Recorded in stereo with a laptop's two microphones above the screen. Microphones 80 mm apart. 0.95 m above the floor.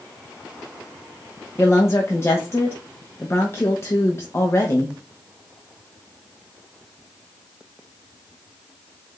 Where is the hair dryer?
I don't hear a hair dryer.